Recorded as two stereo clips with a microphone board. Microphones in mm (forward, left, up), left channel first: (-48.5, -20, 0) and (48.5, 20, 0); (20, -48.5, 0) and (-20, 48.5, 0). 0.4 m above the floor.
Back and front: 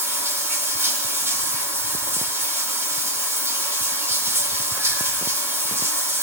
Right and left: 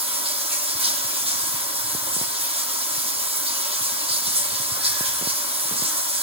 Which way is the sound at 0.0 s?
90° left.